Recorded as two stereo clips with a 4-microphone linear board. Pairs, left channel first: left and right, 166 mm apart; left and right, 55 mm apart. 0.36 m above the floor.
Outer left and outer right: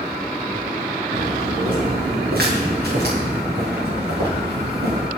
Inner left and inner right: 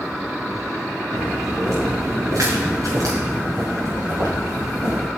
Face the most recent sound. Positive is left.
turn(degrees=-80)